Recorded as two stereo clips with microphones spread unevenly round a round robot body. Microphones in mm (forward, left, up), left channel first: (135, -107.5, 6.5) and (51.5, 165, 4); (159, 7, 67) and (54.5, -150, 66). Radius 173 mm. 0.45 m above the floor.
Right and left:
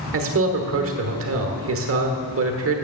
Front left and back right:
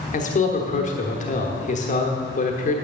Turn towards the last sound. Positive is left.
turn(degrees=95)